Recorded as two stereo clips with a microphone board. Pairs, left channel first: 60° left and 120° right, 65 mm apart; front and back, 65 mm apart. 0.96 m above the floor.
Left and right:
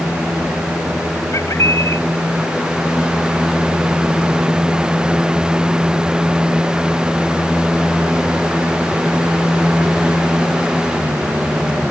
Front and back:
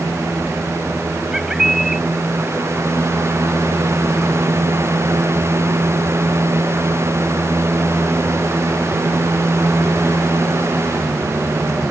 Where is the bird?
95° left.